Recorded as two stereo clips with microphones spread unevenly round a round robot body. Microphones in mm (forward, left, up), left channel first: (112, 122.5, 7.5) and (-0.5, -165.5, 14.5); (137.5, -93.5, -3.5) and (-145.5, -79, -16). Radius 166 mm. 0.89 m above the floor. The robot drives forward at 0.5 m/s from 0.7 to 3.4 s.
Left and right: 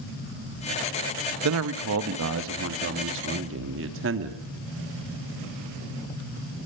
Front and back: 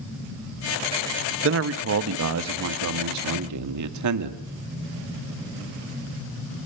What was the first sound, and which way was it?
A man speaking, 150° right.